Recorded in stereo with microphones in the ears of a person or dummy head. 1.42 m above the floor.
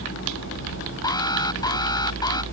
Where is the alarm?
20° left (ahead or behind).